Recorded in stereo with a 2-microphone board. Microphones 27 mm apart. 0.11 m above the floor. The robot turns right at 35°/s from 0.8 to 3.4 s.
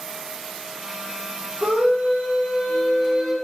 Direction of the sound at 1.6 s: 80° right.